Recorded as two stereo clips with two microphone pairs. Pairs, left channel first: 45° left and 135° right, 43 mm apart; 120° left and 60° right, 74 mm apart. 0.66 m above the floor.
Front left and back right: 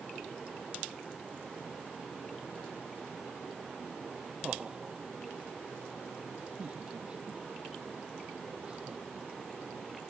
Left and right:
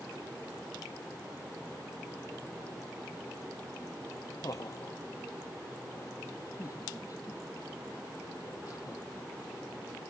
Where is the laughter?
160° left.